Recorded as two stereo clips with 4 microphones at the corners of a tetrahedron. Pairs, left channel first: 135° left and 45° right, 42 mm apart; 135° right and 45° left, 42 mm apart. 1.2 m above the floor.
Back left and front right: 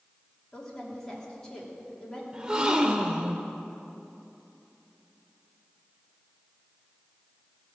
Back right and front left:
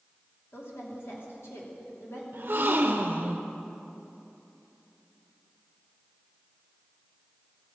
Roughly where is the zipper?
No zipper in this recording.